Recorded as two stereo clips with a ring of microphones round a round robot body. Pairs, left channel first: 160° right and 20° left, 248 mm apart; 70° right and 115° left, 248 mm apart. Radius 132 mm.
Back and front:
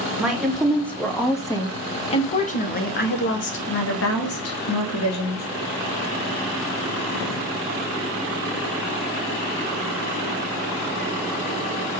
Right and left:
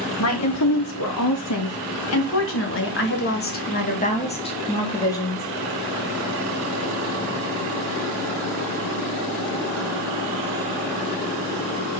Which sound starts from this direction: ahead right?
A woman speaking, at 0.2 s.